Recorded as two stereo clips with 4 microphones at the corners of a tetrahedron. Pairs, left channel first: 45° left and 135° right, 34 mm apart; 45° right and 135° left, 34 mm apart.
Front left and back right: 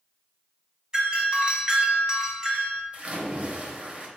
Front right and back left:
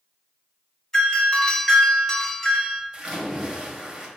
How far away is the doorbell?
About 1.3 m.